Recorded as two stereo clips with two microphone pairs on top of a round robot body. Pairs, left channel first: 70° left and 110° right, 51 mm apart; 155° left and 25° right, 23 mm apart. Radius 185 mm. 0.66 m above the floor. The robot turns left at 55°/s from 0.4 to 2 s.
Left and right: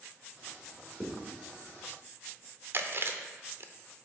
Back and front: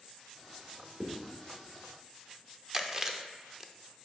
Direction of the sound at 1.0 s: 10° right.